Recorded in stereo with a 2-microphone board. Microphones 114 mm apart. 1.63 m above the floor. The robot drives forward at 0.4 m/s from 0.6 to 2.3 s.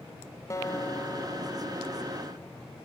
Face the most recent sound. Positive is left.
turn(degrees=25)  # may be behind; listen again after turning